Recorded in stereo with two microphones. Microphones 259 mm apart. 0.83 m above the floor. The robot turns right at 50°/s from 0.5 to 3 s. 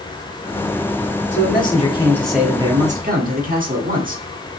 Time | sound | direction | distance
1.3 | a man speaking | 130° left | 1.4 m